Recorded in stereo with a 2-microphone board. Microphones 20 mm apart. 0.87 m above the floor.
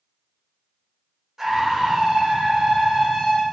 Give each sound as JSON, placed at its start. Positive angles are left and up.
{"t": 1.4, "sound": "a scream", "side_deg": -20, "distance_m": 0.7}